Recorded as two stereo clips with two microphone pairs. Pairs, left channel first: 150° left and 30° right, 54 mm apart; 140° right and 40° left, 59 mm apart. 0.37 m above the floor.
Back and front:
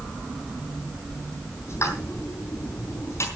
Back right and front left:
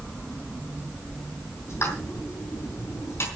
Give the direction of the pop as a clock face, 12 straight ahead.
6 o'clock.